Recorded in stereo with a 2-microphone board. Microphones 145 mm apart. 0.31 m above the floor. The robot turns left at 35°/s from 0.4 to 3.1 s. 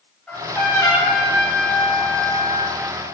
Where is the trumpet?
170° left, 2.5 m; by 2.8 s 85° left, 2.5 m.